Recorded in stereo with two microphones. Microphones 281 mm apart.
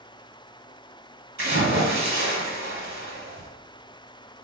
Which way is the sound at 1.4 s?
45° right (ahead or behind).